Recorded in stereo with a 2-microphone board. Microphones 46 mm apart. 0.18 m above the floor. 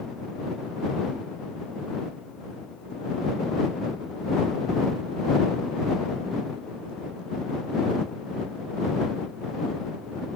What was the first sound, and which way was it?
Only background noise.